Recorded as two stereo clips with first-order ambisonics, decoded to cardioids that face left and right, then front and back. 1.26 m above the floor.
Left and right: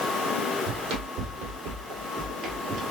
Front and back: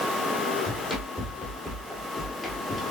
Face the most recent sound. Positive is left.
turn(degrees=-80)